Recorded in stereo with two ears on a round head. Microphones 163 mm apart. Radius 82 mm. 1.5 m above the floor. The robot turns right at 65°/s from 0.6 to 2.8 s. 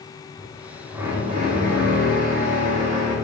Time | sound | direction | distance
0.4 | a drill | 170° left | 2.5 m